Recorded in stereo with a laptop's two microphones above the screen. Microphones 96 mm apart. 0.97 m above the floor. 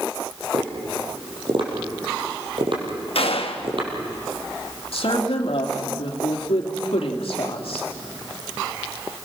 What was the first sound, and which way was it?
Tapping, 60° right (ahead or behind).